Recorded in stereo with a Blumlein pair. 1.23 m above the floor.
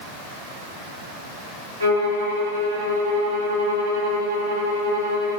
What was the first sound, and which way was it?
A violin, 70° right.